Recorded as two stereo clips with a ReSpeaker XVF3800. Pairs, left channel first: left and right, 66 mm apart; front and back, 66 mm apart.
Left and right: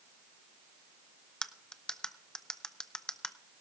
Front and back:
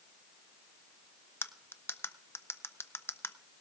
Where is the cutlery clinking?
15° left, 0.5 m.